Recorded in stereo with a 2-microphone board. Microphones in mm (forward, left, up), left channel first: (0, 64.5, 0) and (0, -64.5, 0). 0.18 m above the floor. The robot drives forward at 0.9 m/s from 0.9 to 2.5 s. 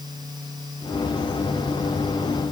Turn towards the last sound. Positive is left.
No sound to turn to.